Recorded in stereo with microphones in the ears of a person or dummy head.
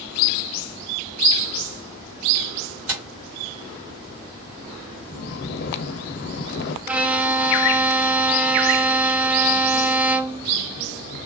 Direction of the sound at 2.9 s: 70° right (ahead or behind).